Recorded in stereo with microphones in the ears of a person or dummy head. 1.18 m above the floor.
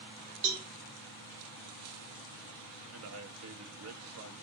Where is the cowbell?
60° right (ahead or behind), 2 m.